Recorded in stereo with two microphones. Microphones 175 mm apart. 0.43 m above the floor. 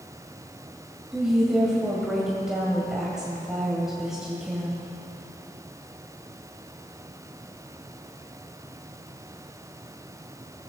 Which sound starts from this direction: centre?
A woman speaking, at 1.1 s.